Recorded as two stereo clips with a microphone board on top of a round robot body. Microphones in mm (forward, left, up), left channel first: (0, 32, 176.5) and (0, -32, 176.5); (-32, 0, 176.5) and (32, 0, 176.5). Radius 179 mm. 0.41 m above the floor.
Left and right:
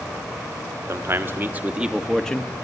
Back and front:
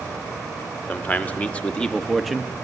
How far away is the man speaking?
About 1.9 m.